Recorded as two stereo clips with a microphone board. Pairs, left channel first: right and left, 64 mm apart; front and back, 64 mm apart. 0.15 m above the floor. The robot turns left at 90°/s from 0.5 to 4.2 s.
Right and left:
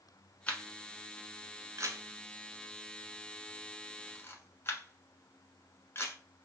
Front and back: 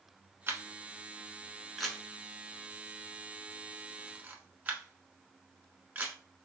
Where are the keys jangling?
I don't hear keys jangling.